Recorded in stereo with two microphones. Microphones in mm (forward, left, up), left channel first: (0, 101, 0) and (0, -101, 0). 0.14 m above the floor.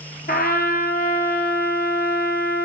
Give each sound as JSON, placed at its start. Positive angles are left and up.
{"t": 0.3, "sound": "a trumpet", "side_deg": 50, "distance_m": 0.7}